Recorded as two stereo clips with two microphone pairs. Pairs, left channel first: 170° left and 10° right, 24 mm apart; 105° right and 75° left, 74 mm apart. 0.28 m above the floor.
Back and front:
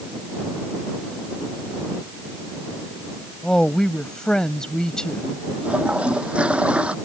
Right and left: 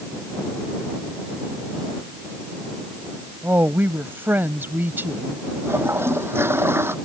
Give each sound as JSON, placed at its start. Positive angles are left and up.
{"t": 3.4, "sound": "a woman speaking", "azimuth_deg": 125}
{"t": 5.6, "sound": "a toilet flushing", "azimuth_deg": 20}